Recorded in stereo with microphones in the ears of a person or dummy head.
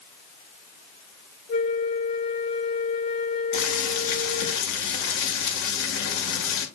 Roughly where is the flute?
Left.